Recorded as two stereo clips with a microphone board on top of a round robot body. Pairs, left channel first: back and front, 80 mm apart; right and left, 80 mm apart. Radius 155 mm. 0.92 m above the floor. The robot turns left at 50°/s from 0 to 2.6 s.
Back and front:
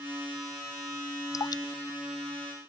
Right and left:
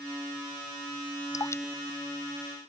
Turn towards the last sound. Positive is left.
turn(degrees=165)